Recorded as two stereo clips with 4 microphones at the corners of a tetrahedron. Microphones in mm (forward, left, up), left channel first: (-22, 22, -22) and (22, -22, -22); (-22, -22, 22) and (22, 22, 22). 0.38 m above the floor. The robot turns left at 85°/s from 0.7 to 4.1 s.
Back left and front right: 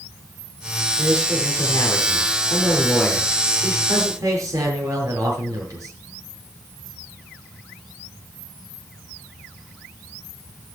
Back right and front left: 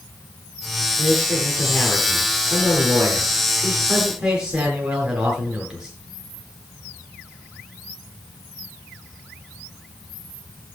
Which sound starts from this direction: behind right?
A man speaking, at 1.0 s.